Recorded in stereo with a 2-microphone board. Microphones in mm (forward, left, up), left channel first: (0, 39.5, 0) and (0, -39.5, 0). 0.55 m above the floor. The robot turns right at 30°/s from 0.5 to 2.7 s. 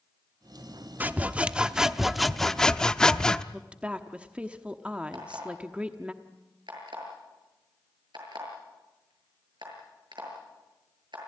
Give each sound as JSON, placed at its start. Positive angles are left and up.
{"t": 1.0, "sound": "sawing", "azimuth_deg": -40, "distance_m": 0.6}
{"t": 3.5, "sound": "a woman speaking", "side_deg": -15, "distance_m": 1.0}
{"t": 5.1, "sound": "an alarm clock", "side_deg": -75, "distance_m": 7.0}